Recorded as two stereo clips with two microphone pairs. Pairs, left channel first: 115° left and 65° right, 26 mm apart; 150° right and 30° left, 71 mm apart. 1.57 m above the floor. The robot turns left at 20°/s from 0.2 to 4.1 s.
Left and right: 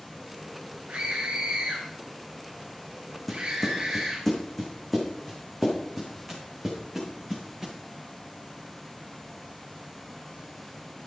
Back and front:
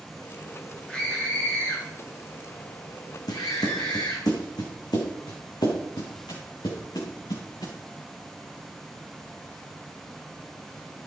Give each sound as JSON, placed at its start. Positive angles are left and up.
{"t": 0.9, "sound": "a scream", "azimuth_deg": -75, "distance_m": 1.9}
{"t": 3.3, "sound": "footsteps", "azimuth_deg": -165, "distance_m": 4.5}